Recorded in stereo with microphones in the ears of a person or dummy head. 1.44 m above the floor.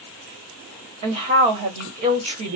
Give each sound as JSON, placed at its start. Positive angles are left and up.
{"t": 1.0, "sound": "a woman speaking", "side_deg": -30, "distance_m": 1.1}